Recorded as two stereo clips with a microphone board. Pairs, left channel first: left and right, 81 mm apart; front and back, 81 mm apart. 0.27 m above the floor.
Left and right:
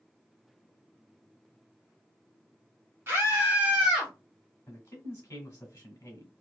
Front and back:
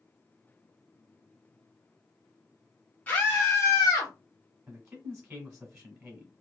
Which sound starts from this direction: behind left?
A man speaking, at 4.7 s.